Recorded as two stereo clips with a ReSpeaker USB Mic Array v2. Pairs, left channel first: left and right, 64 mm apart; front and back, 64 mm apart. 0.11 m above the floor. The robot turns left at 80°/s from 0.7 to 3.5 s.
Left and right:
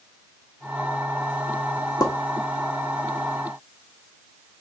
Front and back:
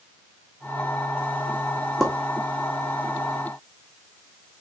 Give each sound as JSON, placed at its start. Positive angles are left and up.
{"t": 2.0, "sound": "a pop", "azimuth_deg": 90, "distance_m": 1.5}